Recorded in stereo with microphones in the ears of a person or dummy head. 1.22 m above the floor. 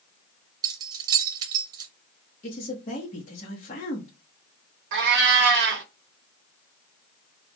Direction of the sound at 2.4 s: 35° left (ahead or behind).